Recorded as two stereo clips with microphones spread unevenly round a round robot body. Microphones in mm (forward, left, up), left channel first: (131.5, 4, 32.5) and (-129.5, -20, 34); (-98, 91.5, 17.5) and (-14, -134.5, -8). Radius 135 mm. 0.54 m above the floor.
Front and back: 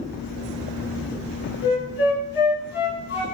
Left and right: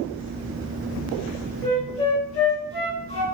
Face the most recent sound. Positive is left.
turn(degrees=45)